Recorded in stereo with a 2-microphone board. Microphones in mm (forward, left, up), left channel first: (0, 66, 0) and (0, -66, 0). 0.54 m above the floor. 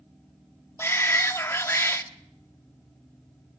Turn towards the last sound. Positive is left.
turn(degrees=20)  # may be behind; listen again after turning